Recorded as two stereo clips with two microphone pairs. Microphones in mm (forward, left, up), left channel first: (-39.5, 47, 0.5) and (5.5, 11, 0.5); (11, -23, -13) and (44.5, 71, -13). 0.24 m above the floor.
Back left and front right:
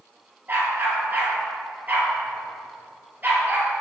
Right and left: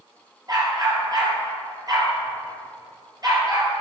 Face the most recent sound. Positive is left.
turn(degrees=20)